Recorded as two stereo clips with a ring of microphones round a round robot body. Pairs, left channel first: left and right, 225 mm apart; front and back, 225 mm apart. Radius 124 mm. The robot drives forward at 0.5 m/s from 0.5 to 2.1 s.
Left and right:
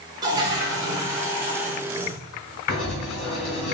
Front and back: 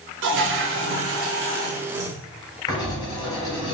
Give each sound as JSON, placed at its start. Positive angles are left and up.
{"t": 0.2, "sound": "a toilet flushing", "azimuth_deg": -160, "distance_m": 0.8}
{"t": 2.7, "sound": "writing", "azimuth_deg": 70, "distance_m": 2.0}